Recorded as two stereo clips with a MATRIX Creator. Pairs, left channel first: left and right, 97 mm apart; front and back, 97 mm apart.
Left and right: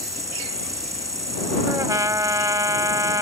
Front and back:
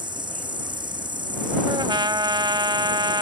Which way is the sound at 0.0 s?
145° right.